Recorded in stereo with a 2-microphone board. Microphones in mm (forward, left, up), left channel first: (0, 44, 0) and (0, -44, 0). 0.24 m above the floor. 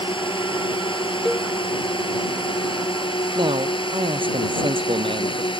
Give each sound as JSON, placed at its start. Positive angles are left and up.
{"t": 0.0, "sound": "a drone", "side_deg": 75}
{"t": 1.2, "sound": "a cowbell", "side_deg": 5}
{"t": 3.4, "sound": "a man speaking", "side_deg": -75}